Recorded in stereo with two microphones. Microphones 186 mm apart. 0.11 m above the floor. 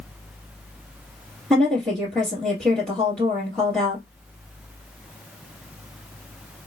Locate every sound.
1.5 s a woman speaking: 5° left (ahead or behind), 2.0 m